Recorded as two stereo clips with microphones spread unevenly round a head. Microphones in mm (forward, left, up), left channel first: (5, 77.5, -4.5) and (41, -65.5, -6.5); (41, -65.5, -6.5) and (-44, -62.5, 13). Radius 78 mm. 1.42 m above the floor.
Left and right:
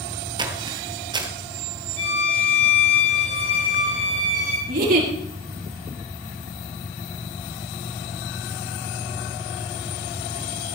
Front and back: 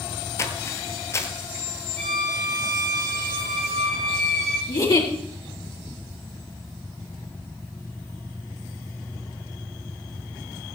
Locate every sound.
0.4 s footsteps: 50° right, 1.6 m
2.0 s a violin: 65° left, 7 m
4.7 s a giggle: 50° right, 5 m